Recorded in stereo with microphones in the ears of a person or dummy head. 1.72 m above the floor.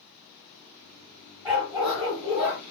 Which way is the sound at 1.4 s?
10° right (ahead or behind).